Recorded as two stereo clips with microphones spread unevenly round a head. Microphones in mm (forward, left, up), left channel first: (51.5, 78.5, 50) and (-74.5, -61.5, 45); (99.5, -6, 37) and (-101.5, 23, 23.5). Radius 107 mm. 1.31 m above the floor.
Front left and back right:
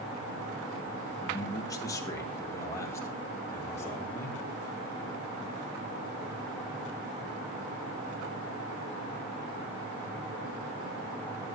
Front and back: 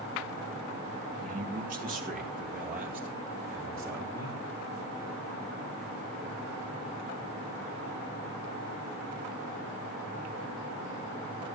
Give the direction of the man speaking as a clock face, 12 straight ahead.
8 o'clock.